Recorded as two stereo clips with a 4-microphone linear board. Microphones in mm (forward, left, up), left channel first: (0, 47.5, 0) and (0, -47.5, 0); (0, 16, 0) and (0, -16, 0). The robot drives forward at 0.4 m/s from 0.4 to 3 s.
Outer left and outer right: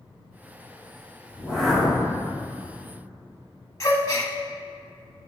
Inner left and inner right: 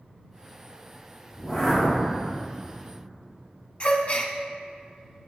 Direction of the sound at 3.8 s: 35° left (ahead or behind).